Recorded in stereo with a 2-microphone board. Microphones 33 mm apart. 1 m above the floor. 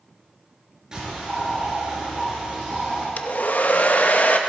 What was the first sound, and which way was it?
A bird, 15° right (ahead or behind).